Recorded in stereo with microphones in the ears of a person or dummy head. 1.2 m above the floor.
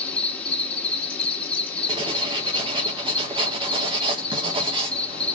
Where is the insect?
10° left (ahead or behind), 1.0 m.